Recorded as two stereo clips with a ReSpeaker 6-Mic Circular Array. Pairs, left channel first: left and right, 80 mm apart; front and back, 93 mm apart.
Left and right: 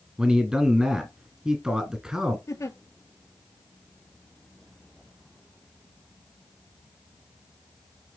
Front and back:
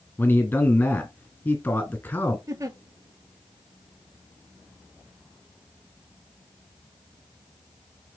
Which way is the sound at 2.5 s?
130° left.